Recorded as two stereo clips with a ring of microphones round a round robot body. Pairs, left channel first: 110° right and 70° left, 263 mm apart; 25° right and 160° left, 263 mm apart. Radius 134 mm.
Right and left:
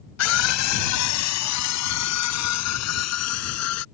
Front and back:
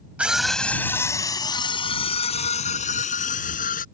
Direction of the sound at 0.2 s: 120° right.